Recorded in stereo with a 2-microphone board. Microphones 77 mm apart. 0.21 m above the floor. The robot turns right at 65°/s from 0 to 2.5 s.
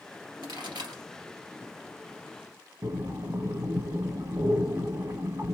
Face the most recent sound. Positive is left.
turn(degrees=-40)  # may be behind; listen again after turning